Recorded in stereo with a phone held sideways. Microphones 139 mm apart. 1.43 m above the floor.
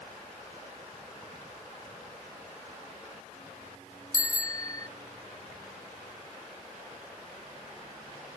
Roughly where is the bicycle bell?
Left.